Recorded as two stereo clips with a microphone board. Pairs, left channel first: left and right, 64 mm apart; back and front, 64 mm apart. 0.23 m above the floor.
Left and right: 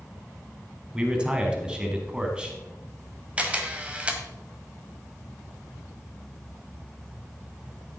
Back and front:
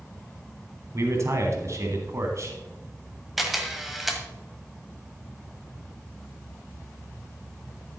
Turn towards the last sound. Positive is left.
turn(degrees=-85)